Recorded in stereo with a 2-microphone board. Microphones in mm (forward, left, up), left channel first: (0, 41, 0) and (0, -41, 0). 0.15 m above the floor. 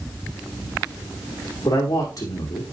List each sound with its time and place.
1.6 s a man speaking: 45° left (ahead or behind), 5 m